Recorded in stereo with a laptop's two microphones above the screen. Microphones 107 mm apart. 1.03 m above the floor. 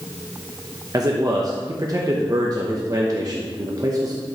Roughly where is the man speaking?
Right.